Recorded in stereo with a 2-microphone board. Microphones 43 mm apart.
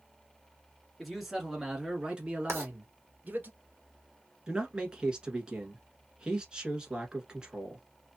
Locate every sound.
1.0 s a man speaking: centre (ahead or behind), 1.5 m; by 3.5 s 45° right (ahead or behind), 1.8 m
2.5 s writing: 85° right, 1.3 m
4.5 s a man speaking: 20° right (ahead or behind), 1.2 m